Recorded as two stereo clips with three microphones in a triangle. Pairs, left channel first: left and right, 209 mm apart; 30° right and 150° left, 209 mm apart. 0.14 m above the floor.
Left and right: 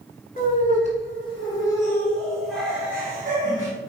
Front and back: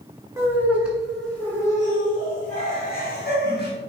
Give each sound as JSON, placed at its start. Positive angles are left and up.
{"t": 0.4, "sound": "laughter", "azimuth_deg": 80, "distance_m": 1.8}